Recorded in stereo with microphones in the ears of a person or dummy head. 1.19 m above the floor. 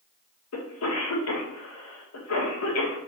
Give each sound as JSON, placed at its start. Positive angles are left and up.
{"t": 0.5, "sound": "a cough", "side_deg": 75, "distance_m": 1.3}